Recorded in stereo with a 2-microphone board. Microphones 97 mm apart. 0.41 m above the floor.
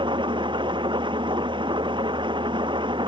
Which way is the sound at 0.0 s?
55° right (ahead or behind).